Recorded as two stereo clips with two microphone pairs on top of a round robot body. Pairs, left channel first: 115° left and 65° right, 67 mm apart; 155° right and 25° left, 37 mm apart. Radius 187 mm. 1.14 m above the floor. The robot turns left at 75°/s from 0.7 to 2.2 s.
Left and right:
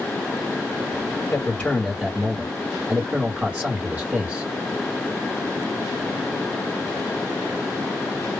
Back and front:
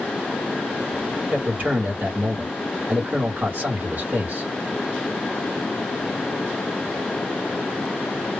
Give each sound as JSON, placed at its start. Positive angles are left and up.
{"t": 1.3, "sound": "a man speaking", "azimuth_deg": 65, "distance_m": 1.0}